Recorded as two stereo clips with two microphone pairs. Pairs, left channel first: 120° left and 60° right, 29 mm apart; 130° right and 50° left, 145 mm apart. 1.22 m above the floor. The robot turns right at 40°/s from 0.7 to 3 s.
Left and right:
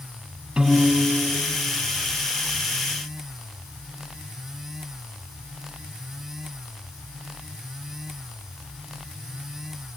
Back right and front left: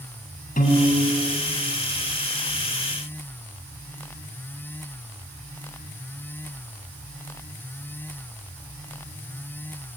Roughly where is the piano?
Behind right.